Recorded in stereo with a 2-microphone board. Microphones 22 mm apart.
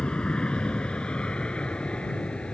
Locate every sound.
0.0 s an aircraft: 45° left (ahead or behind)